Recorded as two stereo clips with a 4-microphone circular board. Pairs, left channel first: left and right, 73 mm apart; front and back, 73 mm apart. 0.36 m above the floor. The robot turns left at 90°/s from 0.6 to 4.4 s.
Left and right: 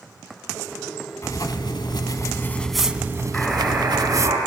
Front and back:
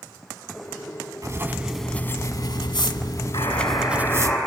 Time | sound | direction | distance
1.2 | writing | 140° left | 0.7 m
3.3 | a buzzer | 15° left | 5.5 m